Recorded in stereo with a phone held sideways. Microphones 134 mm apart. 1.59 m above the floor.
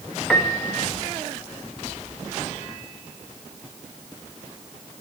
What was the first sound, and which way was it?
A piano, centre (ahead or behind).